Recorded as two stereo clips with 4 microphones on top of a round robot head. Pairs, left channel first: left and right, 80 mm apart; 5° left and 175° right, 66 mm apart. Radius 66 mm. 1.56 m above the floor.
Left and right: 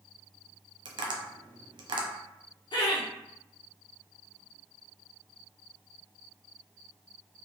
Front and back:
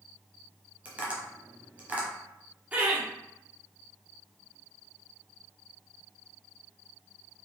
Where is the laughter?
115° left, 1.4 m.